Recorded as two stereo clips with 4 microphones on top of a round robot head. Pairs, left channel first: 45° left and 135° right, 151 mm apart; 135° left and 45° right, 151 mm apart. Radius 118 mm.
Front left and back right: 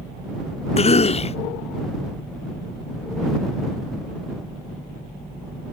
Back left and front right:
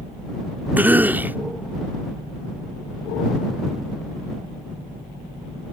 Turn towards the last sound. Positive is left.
turn(degrees=30)